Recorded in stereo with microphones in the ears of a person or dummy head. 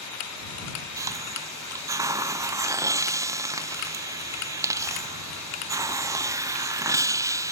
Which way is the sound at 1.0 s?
20° right (ahead or behind).